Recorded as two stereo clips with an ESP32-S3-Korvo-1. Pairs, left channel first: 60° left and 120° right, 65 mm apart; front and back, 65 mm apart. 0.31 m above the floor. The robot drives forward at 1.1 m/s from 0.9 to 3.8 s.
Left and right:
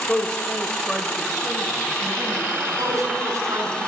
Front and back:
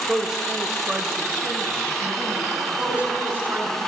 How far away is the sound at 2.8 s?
About 2.5 m.